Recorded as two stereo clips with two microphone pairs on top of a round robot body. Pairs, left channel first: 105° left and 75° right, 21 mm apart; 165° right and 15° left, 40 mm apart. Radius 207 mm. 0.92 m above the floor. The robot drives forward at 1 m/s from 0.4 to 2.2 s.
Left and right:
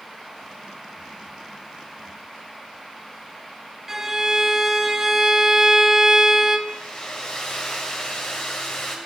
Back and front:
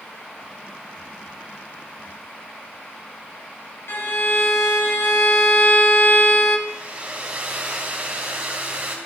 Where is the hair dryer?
70° left, 2.5 m.